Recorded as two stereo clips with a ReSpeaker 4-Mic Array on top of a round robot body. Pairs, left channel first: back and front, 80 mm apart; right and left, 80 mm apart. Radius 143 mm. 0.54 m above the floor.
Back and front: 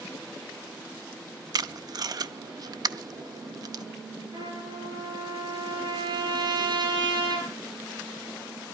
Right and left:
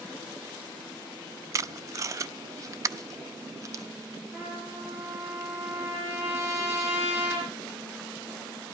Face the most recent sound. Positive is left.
turn(degrees=35)